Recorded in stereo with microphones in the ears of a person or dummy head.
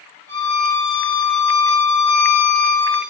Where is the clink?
No clink in this recording.